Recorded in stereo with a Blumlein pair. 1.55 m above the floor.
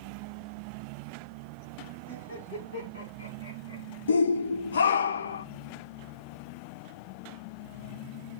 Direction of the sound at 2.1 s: 70° left.